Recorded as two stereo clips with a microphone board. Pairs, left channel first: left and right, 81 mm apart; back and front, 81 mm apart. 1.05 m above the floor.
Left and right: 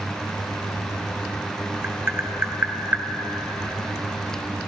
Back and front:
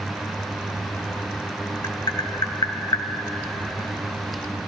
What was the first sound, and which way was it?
Tapping, 150° right.